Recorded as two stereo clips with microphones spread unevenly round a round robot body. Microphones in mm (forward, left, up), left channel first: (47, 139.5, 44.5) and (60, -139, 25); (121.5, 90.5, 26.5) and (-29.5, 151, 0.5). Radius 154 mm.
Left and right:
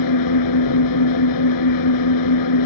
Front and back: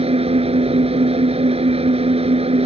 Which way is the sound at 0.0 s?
110° left.